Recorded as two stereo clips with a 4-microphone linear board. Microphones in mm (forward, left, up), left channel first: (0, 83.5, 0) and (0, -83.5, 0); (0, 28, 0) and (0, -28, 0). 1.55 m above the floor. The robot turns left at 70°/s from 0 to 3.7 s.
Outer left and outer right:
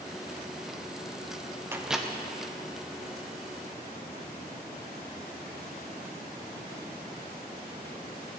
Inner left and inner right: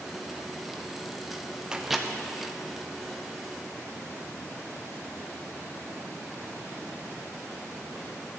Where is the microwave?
15° right (ahead or behind), 0.5 m; by 2.1 s 5° left (ahead or behind), 0.5 m.